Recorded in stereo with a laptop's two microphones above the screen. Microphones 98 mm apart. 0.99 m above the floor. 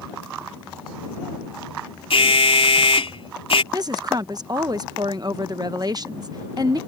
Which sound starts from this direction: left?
An alarm, at 2.1 s.